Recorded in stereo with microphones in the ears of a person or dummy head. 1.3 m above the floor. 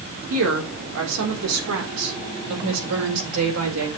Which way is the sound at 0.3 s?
75° right (ahead or behind).